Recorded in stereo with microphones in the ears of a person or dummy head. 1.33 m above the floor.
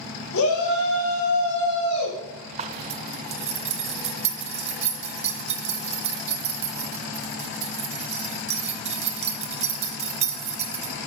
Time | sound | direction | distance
0.3 | a shout | 75° left (ahead or behind) | 2 m
2.6 | a zipper | 35° right (ahead or behind) | 0.6 m